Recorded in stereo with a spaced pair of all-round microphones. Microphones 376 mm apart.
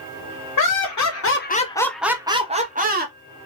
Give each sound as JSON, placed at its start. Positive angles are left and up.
{"t": 0.6, "sound": "laughter", "side_deg": 60, "distance_m": 0.7}